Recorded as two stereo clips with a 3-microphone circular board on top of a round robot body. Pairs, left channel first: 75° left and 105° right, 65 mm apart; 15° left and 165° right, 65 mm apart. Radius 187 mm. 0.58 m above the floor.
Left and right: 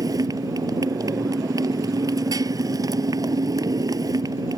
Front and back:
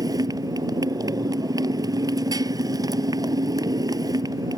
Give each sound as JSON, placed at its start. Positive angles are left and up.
{"t": 0.0, "sound": "a motorcycle", "azimuth_deg": -135}